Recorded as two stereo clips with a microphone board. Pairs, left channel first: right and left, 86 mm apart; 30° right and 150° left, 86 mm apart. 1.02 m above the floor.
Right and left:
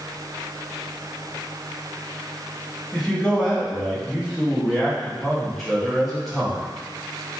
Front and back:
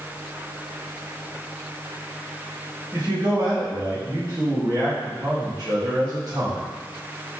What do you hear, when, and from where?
2.9 s a man speaking: 175° right, 1.7 m